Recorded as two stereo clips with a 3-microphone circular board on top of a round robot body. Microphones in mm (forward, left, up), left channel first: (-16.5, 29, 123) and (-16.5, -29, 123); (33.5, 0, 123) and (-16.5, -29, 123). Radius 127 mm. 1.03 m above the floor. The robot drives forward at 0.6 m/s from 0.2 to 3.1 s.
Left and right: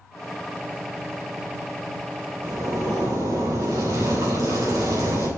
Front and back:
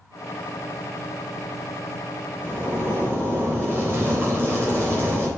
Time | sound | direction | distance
2.4 | a zipper | 90° right | 4 m